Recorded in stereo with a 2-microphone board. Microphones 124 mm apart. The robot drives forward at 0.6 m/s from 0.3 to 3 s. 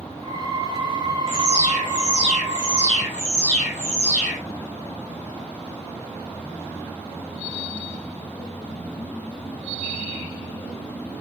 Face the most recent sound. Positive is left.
turn(degrees=15)  # may be behind; listen again after turning